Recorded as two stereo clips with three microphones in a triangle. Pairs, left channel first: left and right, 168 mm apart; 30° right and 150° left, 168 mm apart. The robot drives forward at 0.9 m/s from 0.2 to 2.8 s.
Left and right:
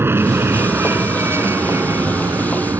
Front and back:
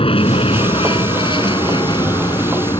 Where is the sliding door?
No sliding door in this recording.